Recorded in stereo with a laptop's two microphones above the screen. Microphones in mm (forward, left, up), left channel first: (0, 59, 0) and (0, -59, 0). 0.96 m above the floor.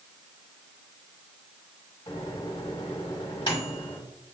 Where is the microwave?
45° left (ahead or behind), 1.3 m.